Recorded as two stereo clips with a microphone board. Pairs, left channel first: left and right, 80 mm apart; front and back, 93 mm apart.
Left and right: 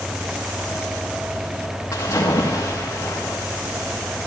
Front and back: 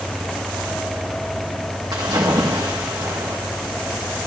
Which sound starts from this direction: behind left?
A splash, at 1.9 s.